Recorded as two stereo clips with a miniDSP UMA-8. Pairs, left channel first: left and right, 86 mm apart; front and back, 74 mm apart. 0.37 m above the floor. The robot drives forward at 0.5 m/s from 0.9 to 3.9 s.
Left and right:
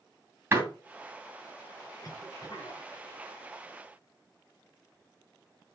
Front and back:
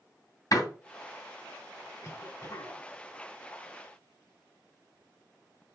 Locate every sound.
0.5 s a door slam: 30° right, 2 m
2.0 s a cough: 45° left, 4 m; by 2.8 s 50° left, 4 m